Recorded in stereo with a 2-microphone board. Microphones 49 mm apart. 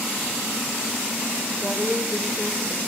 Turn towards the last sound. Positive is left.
turn(degrees=-15)  # may be behind; listen again after turning